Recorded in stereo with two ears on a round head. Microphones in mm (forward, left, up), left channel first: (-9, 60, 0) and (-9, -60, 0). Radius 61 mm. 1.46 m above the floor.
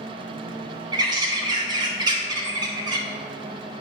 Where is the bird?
30° right (ahead or behind), 0.9 m.